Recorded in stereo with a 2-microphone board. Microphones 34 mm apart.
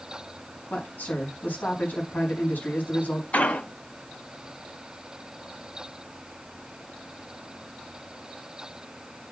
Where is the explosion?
50° left (ahead or behind), 4 m.